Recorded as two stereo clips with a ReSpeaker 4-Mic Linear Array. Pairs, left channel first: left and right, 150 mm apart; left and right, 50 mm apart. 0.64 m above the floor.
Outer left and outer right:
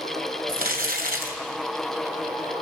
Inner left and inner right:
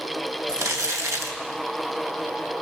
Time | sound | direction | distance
0.5 | crumpling | 85° right | 3 m